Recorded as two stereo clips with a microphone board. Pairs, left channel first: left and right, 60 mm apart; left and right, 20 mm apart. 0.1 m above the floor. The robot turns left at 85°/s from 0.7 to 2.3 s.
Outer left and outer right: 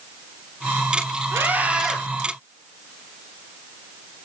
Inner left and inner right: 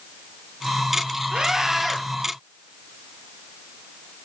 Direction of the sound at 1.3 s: 120° right.